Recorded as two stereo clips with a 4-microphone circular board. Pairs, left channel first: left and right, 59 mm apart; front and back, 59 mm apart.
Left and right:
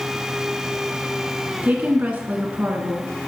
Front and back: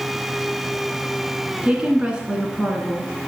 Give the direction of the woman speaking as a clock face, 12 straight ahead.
4 o'clock.